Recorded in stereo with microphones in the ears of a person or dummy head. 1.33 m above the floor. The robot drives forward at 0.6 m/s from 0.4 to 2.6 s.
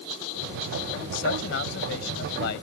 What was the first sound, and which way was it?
A man speaking, 75° left (ahead or behind).